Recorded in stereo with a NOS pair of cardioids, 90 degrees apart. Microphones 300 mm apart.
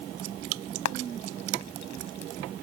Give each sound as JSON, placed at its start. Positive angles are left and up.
{"t": 0.8, "sound": "frying", "azimuth_deg": 65}